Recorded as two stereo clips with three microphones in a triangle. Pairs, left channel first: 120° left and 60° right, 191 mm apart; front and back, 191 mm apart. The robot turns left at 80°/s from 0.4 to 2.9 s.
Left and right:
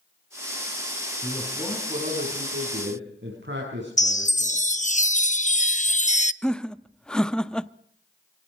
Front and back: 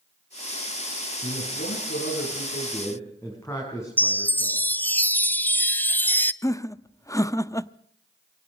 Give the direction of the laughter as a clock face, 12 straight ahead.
11 o'clock.